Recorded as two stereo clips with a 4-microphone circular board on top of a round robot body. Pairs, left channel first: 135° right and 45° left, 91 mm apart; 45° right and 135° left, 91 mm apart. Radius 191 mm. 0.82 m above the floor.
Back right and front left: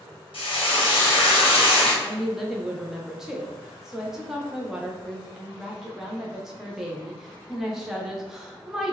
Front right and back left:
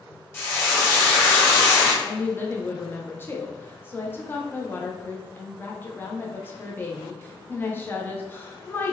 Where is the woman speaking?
30° right, 0.8 m.